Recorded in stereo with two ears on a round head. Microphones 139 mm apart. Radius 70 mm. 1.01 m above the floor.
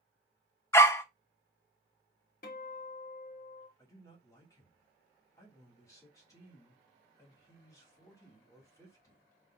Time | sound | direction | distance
0.7 | a dog barking | 15° left (ahead or behind) | 0.6 m
2.4 | a guitar | 55° left (ahead or behind) | 1.4 m
3.8 | a man speaking | 25° left (ahead or behind) | 2.5 m